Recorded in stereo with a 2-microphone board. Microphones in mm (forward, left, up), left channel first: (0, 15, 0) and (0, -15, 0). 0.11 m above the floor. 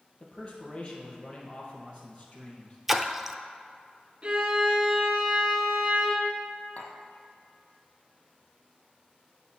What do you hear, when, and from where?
0.2 s a man speaking: 40° left (ahead or behind), 2.5 m
2.9 s a splash: 10° right (ahead or behind), 0.6 m
4.2 s a violin: 30° right (ahead or behind), 1.7 m
6.8 s tapping: 50° left (ahead or behind), 1.4 m